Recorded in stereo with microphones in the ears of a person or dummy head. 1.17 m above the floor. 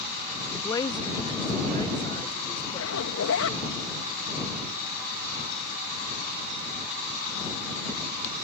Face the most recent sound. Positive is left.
turn(degrees=75)  # may be behind; listen again after turning